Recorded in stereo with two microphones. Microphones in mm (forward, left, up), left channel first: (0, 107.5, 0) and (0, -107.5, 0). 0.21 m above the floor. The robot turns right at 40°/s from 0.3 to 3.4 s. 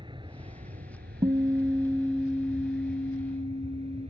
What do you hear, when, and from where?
0.0 s an aircraft: 155° right; by 4.1 s 30° right
1.2 s a guitar: 30° right; by 4.1 s 55° left